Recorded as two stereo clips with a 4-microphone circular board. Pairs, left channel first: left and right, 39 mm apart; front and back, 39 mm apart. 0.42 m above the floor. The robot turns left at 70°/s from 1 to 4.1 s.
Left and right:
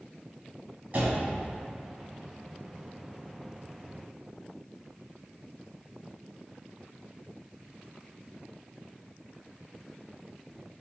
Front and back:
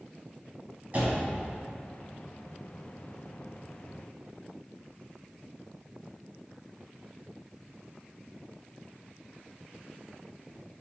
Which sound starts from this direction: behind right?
A door slam, at 0.9 s.